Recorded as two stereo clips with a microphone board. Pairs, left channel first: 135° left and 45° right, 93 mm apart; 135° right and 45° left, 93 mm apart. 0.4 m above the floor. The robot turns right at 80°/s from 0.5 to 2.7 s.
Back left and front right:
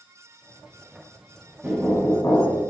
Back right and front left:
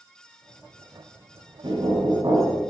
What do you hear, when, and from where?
1.6 s knocking: 30° left, 1.9 m; by 2.6 s 110° left, 1.9 m